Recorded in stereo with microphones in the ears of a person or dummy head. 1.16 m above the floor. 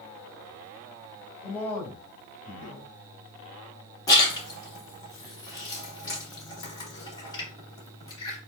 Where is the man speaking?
5° left (ahead or behind), 3 m.